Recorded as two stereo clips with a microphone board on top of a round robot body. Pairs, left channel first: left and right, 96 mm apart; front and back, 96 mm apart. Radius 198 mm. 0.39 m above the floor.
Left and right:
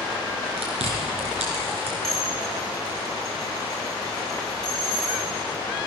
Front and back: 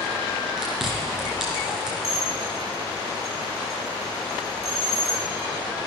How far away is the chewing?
About 2.5 m.